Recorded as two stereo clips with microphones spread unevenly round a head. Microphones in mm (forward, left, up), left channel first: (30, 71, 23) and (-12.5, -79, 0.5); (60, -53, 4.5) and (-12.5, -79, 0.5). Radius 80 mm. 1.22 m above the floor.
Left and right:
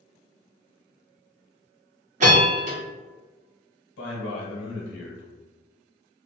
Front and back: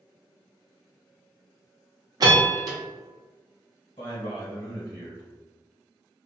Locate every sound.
2.2 s a bell: 135° right, 0.9 m
4.0 s a man speaking: 80° left, 0.9 m